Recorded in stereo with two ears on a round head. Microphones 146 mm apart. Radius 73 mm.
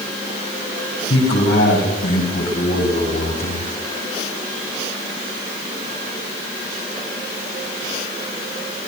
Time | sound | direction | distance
1.1 | a man speaking | 75° left (ahead or behind) | 7.5 m